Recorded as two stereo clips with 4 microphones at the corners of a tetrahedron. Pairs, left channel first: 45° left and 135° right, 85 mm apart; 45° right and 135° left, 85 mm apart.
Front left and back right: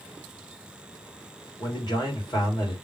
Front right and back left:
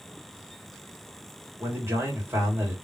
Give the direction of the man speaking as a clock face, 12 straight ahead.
10 o'clock.